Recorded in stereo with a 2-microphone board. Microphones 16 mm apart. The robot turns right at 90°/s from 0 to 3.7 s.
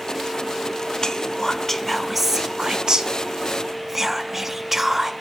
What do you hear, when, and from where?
1.0 s whispering: 50° left (ahead or behind), 0.7 m; by 5.1 s 20° right (ahead or behind), 0.7 m